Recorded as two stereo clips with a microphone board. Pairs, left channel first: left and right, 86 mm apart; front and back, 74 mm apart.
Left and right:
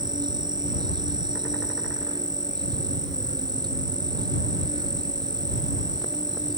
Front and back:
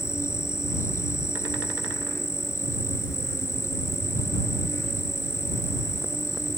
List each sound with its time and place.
0.0 s an insect: 55° right